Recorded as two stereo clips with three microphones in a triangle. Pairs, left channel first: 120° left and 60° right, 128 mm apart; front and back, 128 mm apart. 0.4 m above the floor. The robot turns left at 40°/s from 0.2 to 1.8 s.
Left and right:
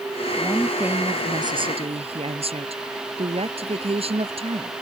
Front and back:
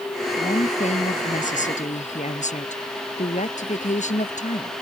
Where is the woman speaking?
35° left; by 4.7 s 20° right.